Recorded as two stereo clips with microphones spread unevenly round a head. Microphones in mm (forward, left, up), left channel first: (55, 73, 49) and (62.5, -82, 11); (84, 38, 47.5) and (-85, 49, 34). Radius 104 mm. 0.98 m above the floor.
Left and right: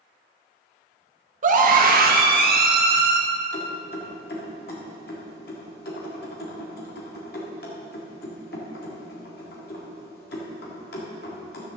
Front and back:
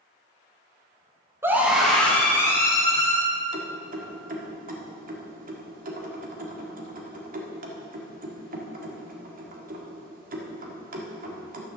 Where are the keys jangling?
140° left, 1.7 m.